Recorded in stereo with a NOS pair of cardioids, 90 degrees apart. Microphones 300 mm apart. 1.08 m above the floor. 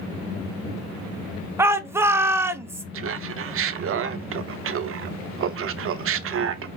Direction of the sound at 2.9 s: 50° right.